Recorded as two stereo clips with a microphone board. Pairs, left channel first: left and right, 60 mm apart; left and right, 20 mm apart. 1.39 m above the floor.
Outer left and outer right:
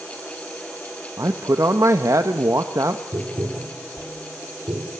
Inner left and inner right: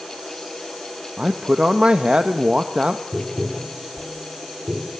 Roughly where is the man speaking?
Right.